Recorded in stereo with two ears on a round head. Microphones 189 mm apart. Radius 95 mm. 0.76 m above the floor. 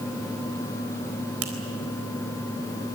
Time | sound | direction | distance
1.4 | a finger snap | 75° right (ahead or behind) | 4 m